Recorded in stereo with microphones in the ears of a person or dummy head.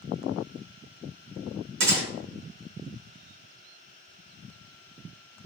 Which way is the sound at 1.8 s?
70° right (ahead or behind).